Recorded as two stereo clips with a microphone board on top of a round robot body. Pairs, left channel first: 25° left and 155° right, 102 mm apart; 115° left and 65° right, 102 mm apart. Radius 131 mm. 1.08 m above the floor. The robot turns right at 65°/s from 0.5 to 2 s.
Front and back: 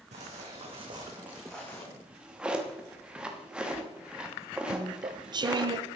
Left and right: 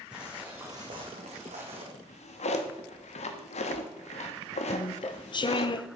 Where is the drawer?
115° left, 1.2 m; by 5.7 s 120° left, 1.2 m.